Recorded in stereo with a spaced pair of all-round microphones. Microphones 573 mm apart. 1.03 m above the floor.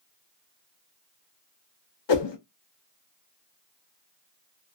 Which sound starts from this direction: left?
A whoosh, at 2.1 s.